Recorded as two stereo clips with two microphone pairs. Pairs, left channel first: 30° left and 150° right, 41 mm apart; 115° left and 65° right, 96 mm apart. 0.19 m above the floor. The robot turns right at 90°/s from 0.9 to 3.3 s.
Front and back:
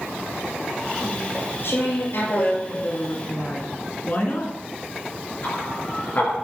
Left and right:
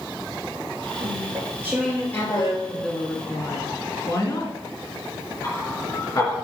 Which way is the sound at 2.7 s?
15° left.